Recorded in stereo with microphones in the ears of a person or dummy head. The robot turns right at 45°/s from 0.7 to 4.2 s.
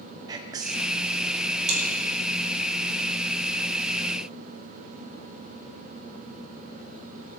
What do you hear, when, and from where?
0.3 s whispering: 20° right (ahead or behind), 0.6 m; by 0.9 s 25° right (ahead or behind), 0.6 m
1.7 s chewing: 40° right (ahead or behind), 3.5 m; by 1.8 s 45° right (ahead or behind), 3.5 m